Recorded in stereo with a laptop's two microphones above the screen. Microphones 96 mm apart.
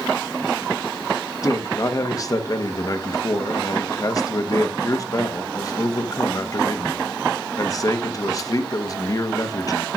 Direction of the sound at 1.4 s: 40° left (ahead or behind).